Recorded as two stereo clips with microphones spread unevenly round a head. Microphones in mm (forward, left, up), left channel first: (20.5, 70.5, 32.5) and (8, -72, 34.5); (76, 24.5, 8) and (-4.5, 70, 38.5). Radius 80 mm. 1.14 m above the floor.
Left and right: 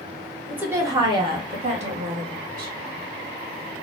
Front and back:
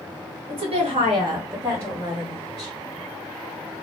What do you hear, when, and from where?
0.5 s a woman speaking: 175° right, 1.1 m; by 2.7 s 115° right, 1.6 m